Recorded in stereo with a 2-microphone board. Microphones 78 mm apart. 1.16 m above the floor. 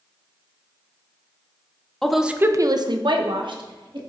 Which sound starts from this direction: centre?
A woman speaking, at 2.0 s.